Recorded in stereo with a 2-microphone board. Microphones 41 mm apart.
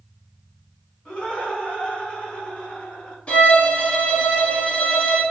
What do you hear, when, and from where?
1.1 s laughter: 20° left (ahead or behind), 1.2 m
3.3 s a violin: 25° left (ahead or behind), 0.9 m